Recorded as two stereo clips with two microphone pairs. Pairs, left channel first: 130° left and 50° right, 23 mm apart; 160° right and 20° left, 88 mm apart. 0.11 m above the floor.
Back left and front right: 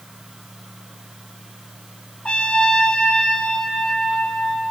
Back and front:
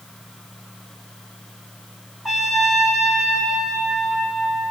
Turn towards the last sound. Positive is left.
turn(degrees=105)